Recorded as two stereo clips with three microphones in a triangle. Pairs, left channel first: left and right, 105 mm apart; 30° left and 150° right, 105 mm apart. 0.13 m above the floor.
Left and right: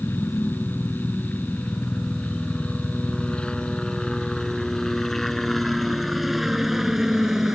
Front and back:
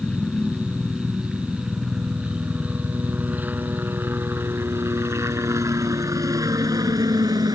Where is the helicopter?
105° left; by 7.6 s 175° right.